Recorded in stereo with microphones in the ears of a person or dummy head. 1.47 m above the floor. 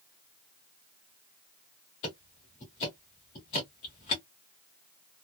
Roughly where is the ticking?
Left.